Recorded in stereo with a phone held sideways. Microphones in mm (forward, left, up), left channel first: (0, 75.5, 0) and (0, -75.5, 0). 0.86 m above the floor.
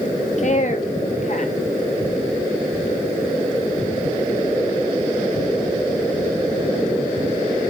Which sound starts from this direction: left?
A woman speaking, at 0.4 s.